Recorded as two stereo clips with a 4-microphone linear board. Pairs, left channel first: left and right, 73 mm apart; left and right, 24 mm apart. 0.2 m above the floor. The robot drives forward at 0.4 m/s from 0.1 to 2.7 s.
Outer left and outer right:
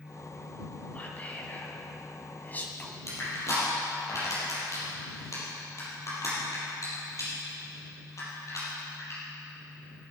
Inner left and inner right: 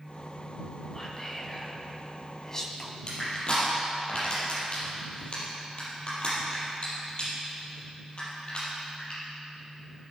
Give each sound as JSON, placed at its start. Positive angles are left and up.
{"t": 0.9, "sound": "whispering", "side_deg": 25, "distance_m": 2.0}
{"t": 3.1, "sound": "crushing", "side_deg": 45, "distance_m": 5.0}